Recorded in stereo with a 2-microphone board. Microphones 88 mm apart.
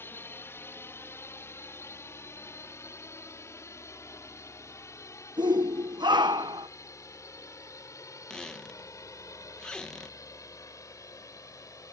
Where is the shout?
55° right (ahead or behind).